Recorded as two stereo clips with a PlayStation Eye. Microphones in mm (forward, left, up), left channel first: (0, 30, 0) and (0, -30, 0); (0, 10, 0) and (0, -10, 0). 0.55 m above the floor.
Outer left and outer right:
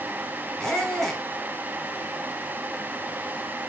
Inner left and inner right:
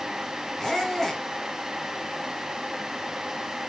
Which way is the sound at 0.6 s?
10° left (ahead or behind).